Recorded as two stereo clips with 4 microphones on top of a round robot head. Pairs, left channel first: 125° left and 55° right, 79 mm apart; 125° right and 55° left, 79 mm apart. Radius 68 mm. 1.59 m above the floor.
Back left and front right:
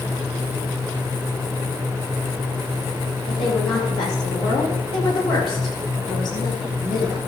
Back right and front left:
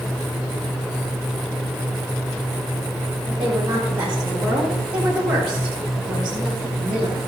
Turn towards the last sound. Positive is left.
turn(degrees=135)